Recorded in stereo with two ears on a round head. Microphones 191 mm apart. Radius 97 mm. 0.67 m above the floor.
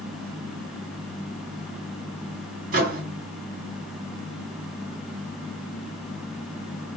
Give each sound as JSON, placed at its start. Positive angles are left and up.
{"t": 2.7, "sound": "a microwave", "side_deg": -40, "distance_m": 1.1}